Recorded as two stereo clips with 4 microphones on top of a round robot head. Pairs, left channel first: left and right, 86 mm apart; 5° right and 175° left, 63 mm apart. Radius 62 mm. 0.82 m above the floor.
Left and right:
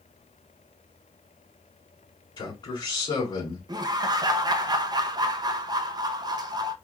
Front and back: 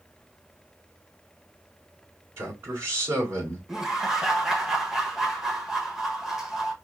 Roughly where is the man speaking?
Behind left.